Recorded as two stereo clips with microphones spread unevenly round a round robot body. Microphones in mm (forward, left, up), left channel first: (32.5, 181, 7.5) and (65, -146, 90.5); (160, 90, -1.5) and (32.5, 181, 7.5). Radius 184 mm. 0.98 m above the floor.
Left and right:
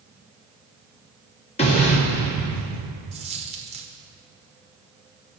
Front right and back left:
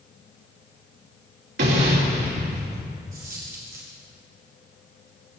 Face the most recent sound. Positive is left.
turn(degrees=-155)